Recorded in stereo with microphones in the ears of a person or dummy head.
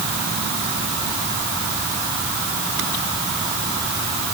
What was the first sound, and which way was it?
Only background noise.